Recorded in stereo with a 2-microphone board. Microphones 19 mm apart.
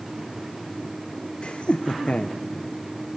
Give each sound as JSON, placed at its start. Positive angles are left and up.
{"t": 1.4, "sound": "laughter", "side_deg": 70, "distance_m": 0.8}